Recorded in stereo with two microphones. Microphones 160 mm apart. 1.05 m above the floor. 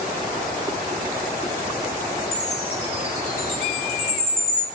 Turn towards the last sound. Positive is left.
turn(degrees=45)  # may be behind; listen again after turning